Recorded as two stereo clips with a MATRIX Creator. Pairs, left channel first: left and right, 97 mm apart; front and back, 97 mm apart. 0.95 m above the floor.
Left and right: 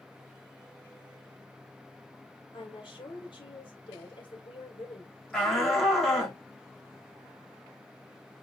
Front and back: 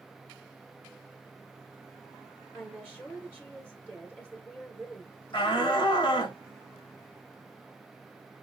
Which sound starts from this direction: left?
A woman speaking, at 2.5 s.